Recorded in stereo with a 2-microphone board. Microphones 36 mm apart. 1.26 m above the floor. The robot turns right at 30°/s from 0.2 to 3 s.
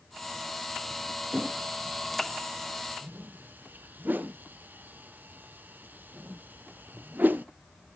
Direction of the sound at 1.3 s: 35° right (ahead or behind).